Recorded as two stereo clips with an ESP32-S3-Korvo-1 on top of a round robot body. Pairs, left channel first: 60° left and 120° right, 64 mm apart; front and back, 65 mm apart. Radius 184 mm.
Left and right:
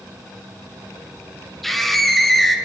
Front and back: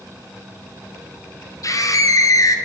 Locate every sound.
1.6 s a scream: 25° right, 2.5 m